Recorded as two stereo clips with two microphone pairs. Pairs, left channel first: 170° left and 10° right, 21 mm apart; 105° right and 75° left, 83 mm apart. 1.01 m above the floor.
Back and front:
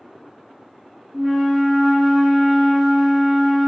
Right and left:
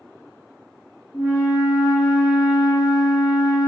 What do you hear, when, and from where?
1.1 s a flute: 90° right, 1.7 m